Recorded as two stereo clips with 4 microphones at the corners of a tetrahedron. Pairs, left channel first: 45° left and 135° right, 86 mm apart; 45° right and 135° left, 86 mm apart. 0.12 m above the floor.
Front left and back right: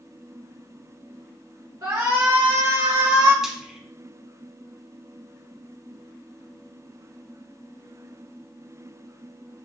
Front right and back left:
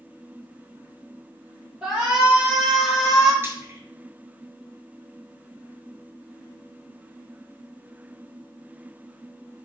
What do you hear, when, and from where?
1.8 s a shout: 165° right, 1.9 m; by 3.3 s 130° right, 2 m
3.4 s frying: 145° left, 0.8 m